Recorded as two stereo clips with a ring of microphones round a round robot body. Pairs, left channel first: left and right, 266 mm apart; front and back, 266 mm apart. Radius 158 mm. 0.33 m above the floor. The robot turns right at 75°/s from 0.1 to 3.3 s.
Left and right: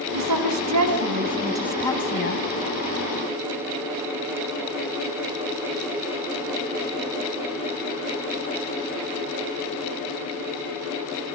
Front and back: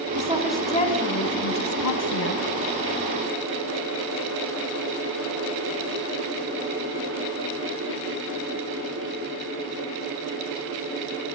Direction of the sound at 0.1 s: 120° right.